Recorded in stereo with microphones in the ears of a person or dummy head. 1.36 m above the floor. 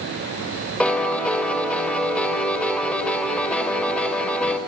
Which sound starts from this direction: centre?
A piano, at 0.8 s.